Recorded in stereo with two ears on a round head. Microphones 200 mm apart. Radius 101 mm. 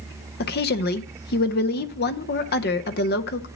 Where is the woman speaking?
40° left (ahead or behind), 0.7 m.